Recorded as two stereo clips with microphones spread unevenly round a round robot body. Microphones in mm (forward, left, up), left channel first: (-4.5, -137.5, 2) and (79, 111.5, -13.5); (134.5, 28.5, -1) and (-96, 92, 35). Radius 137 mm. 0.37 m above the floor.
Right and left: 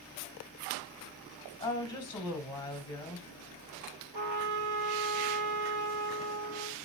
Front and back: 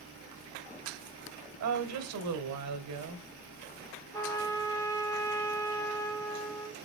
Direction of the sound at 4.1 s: 60° left.